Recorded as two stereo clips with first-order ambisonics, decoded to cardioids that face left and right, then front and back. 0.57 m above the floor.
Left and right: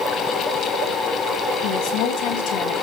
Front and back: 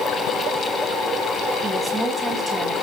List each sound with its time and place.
1.6 s a woman speaking: 100° left, 3.5 m